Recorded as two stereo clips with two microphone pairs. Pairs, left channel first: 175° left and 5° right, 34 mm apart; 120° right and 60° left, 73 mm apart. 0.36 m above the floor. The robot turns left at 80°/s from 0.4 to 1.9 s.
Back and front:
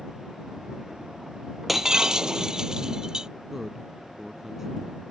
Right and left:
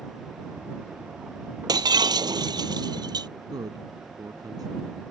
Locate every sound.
1.7 s breaking glass: 80° left; by 3.3 s 60° left
3.5 s a man speaking: 65° left